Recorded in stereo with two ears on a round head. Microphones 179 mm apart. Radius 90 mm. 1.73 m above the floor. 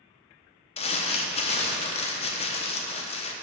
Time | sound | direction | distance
0.8 | crumpling | 30° left (ahead or behind) | 0.7 m